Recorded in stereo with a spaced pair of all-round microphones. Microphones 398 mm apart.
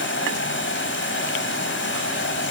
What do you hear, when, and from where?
0.0 s running water: 30° left (ahead or behind), 3.5 m